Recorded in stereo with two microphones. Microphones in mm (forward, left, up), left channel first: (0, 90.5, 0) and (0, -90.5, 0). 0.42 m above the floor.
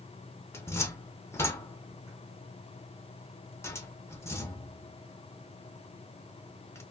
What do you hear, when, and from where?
0.5 s a cupboard door: 15° left (ahead or behind), 0.6 m